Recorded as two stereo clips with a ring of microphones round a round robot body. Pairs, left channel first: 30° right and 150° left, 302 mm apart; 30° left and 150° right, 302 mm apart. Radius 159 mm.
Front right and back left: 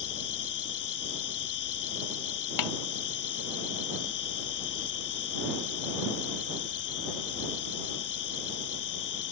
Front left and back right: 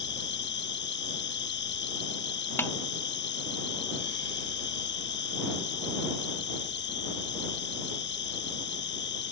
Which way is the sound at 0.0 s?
20° right.